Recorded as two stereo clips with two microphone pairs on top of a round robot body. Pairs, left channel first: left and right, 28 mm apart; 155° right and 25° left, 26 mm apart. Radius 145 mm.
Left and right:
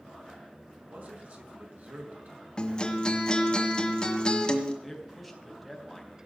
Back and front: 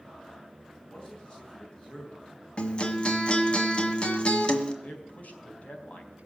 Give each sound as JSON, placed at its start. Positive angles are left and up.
{"t": 0.8, "sound": "a man speaking", "azimuth_deg": -100, "distance_m": 5.0}
{"t": 2.6, "sound": "a guitar", "azimuth_deg": 155, "distance_m": 1.7}
{"t": 4.8, "sound": "a man speaking", "azimuth_deg": -175, "distance_m": 4.0}